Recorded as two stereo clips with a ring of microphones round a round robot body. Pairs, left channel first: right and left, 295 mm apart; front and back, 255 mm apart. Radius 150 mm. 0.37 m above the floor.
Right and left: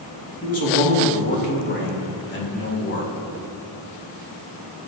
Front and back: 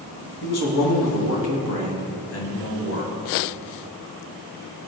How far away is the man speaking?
About 3.5 m.